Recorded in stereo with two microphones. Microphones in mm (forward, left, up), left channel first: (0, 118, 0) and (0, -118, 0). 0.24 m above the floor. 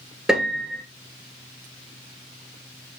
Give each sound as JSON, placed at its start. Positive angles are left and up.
{"t": 0.3, "sound": "a piano", "side_deg": 0, "distance_m": 1.2}